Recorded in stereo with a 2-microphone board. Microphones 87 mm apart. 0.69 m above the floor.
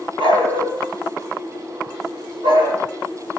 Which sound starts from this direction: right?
A dog barking, at 0.2 s.